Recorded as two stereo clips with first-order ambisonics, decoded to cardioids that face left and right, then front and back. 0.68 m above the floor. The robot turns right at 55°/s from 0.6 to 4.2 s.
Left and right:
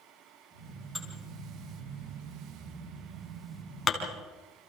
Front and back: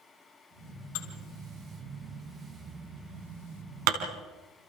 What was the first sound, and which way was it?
Dishes clattering, straight ahead.